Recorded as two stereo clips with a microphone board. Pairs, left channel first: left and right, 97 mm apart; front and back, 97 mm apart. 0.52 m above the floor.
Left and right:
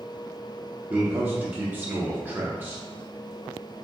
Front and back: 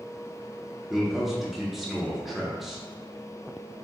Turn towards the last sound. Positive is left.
turn(degrees=-100)